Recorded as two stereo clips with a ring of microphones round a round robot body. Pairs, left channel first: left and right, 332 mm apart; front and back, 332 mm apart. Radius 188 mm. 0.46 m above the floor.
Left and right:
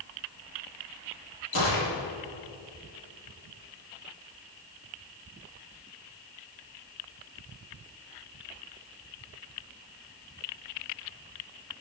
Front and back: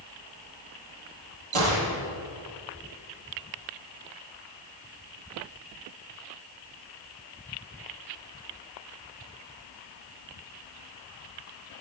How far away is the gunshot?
About 3.5 m.